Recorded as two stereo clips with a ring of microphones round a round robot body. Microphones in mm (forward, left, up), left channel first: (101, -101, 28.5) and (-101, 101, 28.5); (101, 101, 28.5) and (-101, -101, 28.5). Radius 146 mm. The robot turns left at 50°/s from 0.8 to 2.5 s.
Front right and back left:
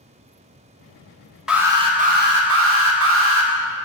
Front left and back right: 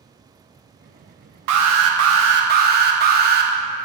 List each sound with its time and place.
1.5 s an alarm: 135° right, 1.1 m; by 3.5 s 170° left, 1.1 m